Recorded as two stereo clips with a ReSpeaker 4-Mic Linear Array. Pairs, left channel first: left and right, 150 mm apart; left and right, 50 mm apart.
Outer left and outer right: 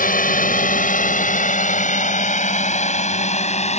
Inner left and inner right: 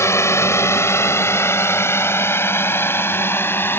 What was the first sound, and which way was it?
A drone, 65° left (ahead or behind).